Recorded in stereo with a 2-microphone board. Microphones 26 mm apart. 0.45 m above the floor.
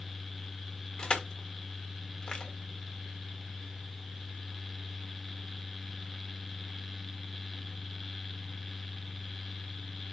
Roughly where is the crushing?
Left.